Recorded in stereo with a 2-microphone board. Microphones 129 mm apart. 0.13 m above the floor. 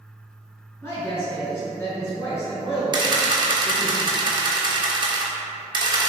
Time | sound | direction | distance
0.8 | a woman speaking | 20° left (ahead or behind) | 1.5 m
2.9 | a camera shutter | 40° right (ahead or behind) | 0.6 m